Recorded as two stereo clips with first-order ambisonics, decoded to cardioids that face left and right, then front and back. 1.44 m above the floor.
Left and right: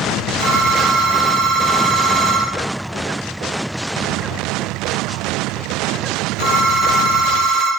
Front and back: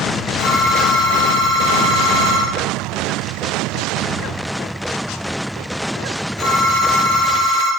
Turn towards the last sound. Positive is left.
turn(degrees=-30)